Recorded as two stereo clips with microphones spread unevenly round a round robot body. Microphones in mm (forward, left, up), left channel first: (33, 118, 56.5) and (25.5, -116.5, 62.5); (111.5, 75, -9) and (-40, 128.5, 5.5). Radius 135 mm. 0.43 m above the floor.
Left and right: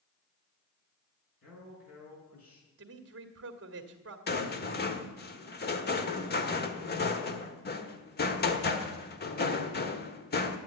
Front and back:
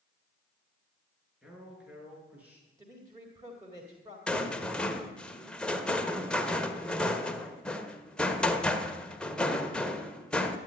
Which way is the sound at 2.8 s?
120° right.